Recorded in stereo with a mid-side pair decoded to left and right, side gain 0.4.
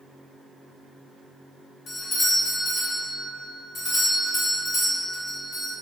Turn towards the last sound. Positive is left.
turn(degrees=60)